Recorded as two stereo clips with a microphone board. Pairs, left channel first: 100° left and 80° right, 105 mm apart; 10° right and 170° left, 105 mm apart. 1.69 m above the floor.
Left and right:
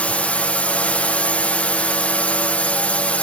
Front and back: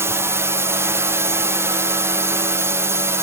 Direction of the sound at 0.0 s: 160° left.